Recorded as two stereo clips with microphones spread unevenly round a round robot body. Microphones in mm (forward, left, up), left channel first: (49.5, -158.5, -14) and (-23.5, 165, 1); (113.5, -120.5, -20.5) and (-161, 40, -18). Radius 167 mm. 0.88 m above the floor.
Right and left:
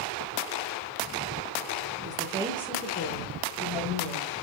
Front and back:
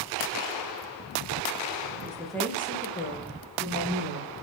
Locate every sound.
2.0 s a woman speaking: 75° left, 0.7 m; by 4.3 s 85° right, 1.5 m